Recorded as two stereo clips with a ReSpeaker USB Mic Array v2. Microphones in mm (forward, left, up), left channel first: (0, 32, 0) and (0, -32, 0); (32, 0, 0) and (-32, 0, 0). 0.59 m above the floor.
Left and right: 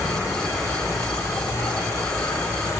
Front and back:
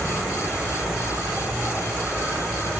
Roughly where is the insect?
Left.